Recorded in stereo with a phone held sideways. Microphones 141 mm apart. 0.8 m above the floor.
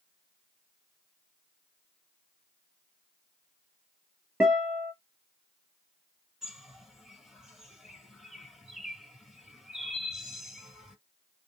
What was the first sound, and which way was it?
A guitar, 10° right (ahead or behind).